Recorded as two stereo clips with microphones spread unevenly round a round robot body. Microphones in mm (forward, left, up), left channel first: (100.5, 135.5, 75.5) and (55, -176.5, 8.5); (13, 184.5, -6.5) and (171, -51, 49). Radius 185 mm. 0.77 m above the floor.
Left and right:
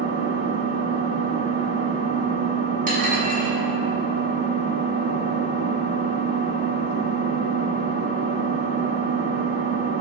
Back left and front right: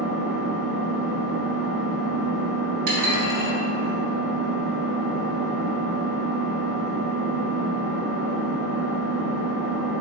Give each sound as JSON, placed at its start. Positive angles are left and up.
{"t": 0.0, "sound": "an engine running", "azimuth_deg": -35, "distance_m": 0.9}
{"t": 2.9, "sound": "dishes clattering", "azimuth_deg": -30, "distance_m": 1.2}